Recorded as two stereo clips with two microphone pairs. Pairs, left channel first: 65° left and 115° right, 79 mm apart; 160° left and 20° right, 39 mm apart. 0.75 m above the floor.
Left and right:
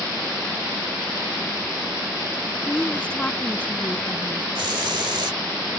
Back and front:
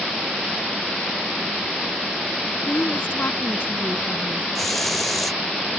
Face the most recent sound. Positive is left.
turn(degrees=-110)